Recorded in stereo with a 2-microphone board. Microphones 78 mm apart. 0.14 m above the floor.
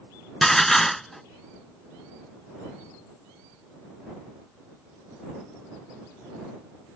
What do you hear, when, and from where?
0.4 s dishes clattering: 5° left (ahead or behind)